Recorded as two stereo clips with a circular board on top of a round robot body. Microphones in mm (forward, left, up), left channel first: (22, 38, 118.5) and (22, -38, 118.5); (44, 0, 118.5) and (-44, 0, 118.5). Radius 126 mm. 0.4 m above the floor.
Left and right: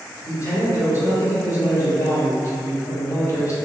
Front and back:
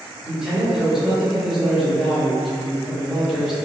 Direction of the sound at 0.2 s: 100° left.